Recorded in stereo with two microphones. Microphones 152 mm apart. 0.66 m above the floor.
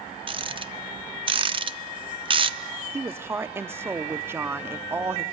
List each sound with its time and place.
0.3 s a rattle: 35° right (ahead or behind), 0.5 m
2.9 s a woman speaking: 15° right (ahead or behind), 0.8 m